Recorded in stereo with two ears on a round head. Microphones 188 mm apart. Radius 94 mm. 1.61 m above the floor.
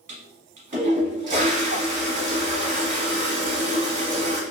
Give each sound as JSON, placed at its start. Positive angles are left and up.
{"t": 0.1, "sound": "a toilet flushing", "side_deg": -35, "distance_m": 1.1}